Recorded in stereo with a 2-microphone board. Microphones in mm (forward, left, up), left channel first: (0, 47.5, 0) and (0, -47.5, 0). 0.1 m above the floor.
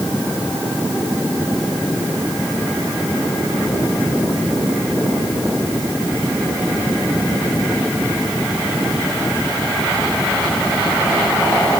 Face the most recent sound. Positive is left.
No sound to turn to.